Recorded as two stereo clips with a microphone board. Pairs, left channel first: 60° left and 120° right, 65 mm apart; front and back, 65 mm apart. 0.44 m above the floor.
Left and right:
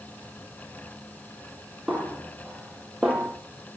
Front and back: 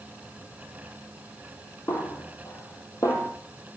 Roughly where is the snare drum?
Ahead right.